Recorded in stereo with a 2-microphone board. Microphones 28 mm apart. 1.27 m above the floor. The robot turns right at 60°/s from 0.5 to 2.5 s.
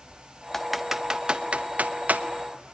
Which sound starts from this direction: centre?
Typing on a keyboard, at 0.5 s.